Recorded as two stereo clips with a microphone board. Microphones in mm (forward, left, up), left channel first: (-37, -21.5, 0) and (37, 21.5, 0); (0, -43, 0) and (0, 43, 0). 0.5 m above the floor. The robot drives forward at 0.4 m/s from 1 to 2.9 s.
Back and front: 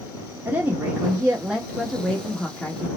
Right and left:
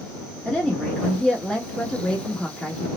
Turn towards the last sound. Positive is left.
turn(degrees=-165)